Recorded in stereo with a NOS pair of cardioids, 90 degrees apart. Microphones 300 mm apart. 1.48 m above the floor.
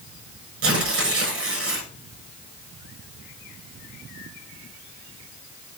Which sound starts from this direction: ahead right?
Tearing paper, at 0.6 s.